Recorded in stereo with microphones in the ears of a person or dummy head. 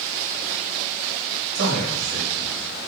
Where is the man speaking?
65° right (ahead or behind), 3.5 m.